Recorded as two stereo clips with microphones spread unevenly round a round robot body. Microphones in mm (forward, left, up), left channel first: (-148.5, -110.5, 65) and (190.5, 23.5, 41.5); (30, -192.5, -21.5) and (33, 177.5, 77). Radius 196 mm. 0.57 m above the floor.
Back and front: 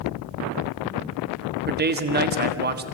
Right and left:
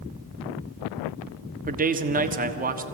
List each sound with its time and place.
1.7 s a man speaking: 15° left, 1.4 m